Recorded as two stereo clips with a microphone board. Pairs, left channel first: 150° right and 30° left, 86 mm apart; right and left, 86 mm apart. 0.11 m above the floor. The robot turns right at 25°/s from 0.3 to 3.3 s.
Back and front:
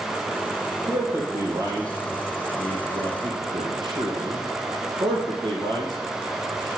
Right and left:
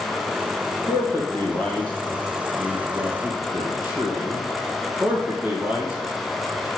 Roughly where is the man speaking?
Ahead right.